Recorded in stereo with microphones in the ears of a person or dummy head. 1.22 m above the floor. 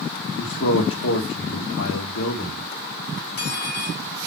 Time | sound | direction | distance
0.4 | a man speaking | 75° left (ahead or behind) | 1.8 m
3.2 | cutlery clinking | 45° left (ahead or behind) | 4.5 m